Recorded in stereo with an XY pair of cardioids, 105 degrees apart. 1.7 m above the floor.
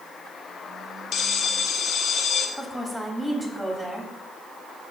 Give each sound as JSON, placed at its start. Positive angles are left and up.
{"t": 1.1, "sound": "a bell", "azimuth_deg": 65, "distance_m": 1.1}
{"t": 2.6, "sound": "a woman speaking", "azimuth_deg": -10, "distance_m": 3.0}